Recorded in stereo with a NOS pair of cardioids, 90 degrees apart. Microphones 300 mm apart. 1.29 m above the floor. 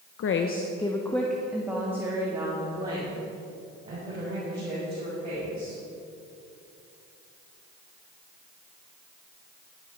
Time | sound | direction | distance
0.2 | a woman speaking | 55° left | 0.7 m